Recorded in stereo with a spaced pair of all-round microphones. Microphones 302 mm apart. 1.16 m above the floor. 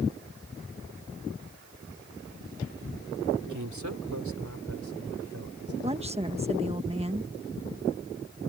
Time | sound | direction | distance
3.4 | a man speaking | 75° right (ahead or behind) | ?
5.8 | a woman speaking | 20° right (ahead or behind) | ?